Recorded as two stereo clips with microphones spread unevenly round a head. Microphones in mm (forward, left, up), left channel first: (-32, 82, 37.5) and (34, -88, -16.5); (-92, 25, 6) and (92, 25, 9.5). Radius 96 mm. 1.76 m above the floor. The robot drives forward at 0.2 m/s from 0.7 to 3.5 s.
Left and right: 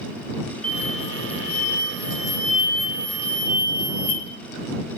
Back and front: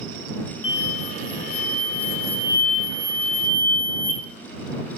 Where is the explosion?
170° right, 0.5 m; by 4.2 s 175° right, 1.0 m.